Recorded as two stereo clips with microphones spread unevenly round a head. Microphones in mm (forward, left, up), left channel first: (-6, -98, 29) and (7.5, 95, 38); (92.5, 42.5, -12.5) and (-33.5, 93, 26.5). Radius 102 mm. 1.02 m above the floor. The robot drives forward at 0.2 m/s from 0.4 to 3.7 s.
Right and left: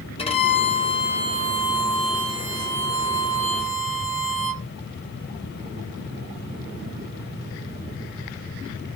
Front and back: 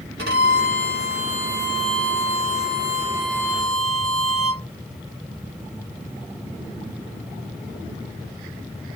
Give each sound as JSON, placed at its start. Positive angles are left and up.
{"t": 0.2, "sound": "a violin", "azimuth_deg": -155, "distance_m": 0.8}